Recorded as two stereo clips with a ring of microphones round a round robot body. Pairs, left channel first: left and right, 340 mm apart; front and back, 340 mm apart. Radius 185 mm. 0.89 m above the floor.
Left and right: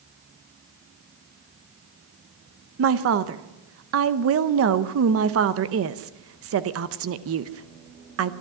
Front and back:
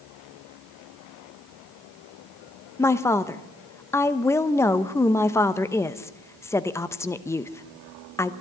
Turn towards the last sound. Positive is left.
turn(degrees=-80)